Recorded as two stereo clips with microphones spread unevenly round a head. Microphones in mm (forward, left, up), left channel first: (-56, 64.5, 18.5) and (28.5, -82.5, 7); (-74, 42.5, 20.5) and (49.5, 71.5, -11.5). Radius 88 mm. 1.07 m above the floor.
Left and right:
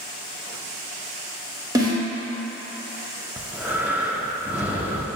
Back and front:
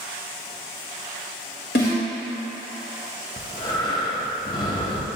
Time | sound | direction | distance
1.8 | a snare drum | 130° right | 1.7 m
3.4 | breathing | 140° right | 0.7 m